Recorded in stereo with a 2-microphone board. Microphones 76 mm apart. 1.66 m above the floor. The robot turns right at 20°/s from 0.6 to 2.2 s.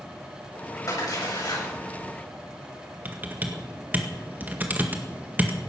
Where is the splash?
50° left (ahead or behind), 8 m; by 1.7 s 65° left (ahead or behind), 8 m.